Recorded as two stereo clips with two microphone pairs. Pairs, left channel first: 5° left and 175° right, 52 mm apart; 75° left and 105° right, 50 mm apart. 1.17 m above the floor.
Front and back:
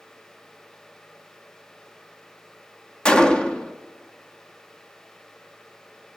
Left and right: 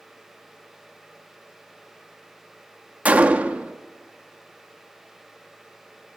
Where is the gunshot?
65° right, 0.7 m.